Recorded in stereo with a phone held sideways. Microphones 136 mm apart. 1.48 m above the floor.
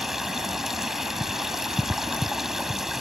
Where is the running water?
Centre (ahead or behind).